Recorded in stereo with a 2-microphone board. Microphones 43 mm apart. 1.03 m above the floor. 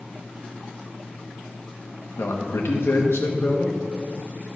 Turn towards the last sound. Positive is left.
turn(degrees=70)  # may be behind; listen again after turning